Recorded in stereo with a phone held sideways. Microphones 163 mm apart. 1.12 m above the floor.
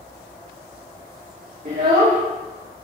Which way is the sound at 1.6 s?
60° right (ahead or behind).